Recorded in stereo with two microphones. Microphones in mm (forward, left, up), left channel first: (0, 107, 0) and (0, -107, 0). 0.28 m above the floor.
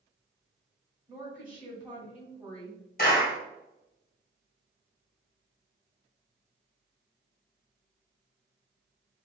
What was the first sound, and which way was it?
A woman speaking, 5° right (ahead or behind).